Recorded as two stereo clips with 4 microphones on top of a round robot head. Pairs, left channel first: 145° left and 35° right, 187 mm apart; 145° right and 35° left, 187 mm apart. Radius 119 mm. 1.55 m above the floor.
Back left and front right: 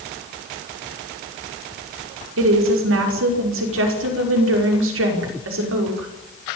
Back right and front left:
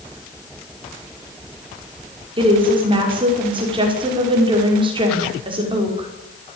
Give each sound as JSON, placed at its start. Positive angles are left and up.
{"t": 2.4, "sound": "a woman speaking", "azimuth_deg": -30, "distance_m": 5.5}